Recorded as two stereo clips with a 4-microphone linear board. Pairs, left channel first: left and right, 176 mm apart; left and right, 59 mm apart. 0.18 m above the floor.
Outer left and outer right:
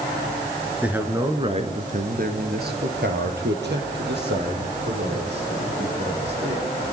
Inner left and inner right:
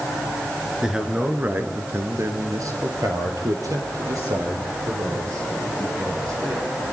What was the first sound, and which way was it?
A man speaking, 5° right (ahead or behind).